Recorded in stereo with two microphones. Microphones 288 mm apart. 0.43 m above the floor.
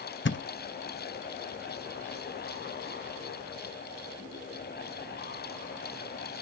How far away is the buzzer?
No buzzer in this recording.